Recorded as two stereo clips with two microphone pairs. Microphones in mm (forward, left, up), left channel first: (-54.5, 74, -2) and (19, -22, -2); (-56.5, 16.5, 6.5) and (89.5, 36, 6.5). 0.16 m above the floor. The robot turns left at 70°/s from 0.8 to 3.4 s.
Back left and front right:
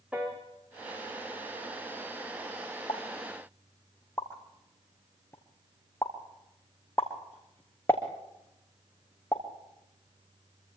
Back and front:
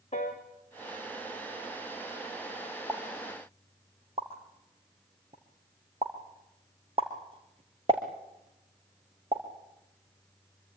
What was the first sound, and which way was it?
A piano, 130° right.